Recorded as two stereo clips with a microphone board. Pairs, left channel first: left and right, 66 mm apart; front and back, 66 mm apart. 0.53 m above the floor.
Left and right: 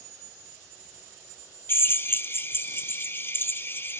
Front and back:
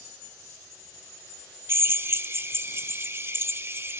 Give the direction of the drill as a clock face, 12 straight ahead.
7 o'clock.